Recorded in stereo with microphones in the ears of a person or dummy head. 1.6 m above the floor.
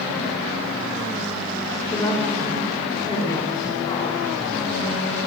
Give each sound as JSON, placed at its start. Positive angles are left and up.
{"t": 1.9, "sound": "a woman speaking", "side_deg": 20, "distance_m": 5.0}